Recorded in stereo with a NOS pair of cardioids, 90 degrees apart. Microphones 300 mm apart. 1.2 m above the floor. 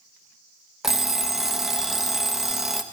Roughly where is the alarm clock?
Ahead.